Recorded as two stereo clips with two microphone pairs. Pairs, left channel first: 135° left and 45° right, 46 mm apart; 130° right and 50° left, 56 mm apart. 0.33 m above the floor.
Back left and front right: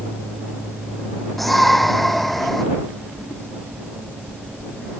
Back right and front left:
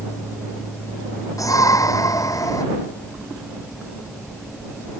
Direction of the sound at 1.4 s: 135° right.